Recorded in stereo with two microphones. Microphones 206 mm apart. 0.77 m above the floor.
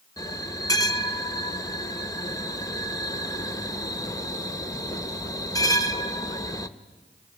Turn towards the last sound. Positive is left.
turn(degrees=15)  # may be behind; listen again after turning